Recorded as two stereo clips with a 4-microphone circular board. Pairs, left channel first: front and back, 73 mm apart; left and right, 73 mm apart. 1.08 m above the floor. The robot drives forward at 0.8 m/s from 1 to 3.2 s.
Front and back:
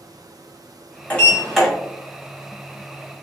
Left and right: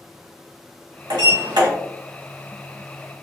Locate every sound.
1.1 s a sliding door: 70° right, 1.3 m; by 1.7 s 90° right, 1.3 m